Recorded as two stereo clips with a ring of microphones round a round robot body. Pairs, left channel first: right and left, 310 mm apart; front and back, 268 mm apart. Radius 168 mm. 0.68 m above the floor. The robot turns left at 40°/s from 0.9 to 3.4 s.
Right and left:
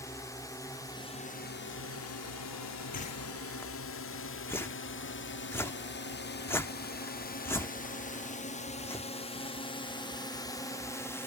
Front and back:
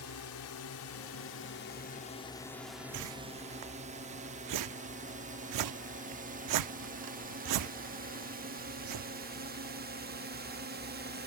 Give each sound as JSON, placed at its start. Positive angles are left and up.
{"t": 0.0, "sound": "a drone", "azimuth_deg": -10}
{"t": 2.9, "sound": "a whoosh", "azimuth_deg": -155}